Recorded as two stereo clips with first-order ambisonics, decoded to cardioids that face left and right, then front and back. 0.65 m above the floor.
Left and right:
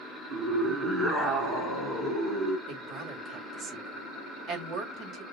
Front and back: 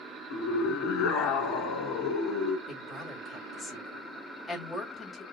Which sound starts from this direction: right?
A woman speaking, at 2.7 s.